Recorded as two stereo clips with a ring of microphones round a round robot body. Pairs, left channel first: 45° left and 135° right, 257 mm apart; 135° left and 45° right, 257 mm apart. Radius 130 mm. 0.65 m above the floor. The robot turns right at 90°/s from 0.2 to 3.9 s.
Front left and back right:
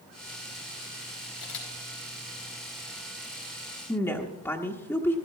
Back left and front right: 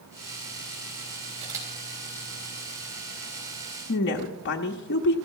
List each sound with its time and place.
1.4 s a camera shutter: 15° left, 4 m; by 1.7 s 45° left, 4 m
3.9 s a woman speaking: 120° left, 0.9 m